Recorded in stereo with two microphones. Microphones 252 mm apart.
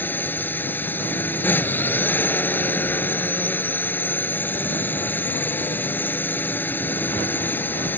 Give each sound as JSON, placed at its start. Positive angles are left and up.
{"t": 0.0, "sound": "a drone", "side_deg": 5}